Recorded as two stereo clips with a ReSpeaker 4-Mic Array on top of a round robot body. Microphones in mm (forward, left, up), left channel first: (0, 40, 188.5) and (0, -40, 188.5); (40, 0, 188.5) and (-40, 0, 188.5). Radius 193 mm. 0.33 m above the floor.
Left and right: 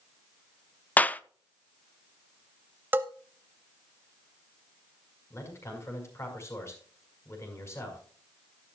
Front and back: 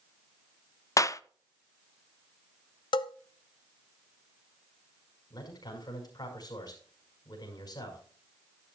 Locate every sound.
1.0 s a clap: 25° left, 0.8 m
2.9 s a bell: 25° right, 0.6 m
5.3 s a man speaking: 35° left, 5.5 m